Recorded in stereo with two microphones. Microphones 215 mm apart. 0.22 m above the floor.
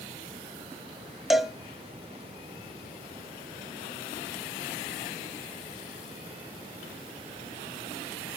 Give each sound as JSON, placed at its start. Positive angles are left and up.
{"t": 1.3, "sound": "a cowbell", "side_deg": 0, "distance_m": 0.5}